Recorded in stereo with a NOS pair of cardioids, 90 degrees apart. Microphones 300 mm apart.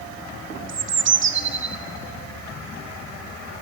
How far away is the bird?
About 1.2 m.